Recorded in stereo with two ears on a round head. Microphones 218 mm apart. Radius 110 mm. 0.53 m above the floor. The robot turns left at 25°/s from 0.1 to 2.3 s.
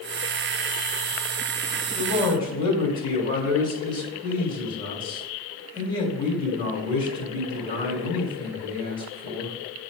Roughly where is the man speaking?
Left.